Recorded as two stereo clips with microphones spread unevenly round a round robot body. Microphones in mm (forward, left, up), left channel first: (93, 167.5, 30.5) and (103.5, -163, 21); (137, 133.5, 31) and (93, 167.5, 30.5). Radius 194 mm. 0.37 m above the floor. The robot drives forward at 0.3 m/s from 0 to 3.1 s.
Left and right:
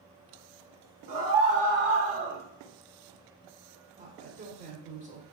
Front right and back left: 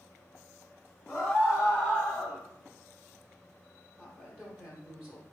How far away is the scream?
About 0.9 m.